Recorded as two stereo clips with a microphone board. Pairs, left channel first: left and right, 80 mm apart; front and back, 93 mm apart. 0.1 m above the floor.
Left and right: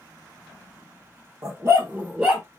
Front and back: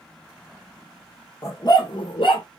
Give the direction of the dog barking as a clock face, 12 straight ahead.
2 o'clock.